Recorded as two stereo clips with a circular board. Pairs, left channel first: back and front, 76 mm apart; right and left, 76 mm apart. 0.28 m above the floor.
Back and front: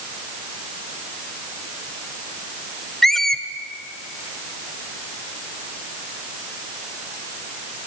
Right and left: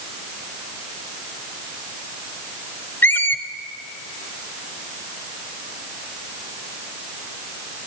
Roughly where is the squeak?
Right.